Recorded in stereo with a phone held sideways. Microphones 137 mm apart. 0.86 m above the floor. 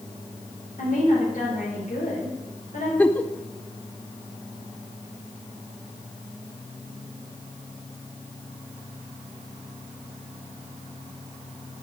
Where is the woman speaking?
70° left (ahead or behind), 3.5 m.